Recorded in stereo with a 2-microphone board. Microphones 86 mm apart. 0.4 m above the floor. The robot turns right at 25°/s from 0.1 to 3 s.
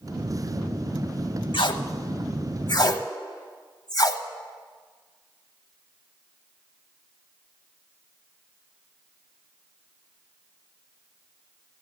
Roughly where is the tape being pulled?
Left.